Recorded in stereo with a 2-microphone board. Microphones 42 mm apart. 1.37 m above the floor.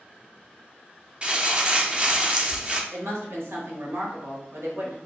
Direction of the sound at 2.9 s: 90° right.